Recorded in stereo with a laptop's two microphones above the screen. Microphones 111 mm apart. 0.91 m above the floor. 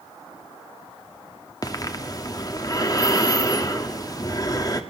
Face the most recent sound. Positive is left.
turn(degrees=35)  # may be behind; listen again after turning